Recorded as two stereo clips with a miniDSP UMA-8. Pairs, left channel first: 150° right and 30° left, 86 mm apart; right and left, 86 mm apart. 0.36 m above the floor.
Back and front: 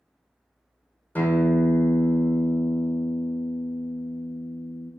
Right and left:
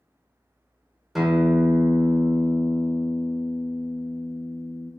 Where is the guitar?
175° left, 0.6 m.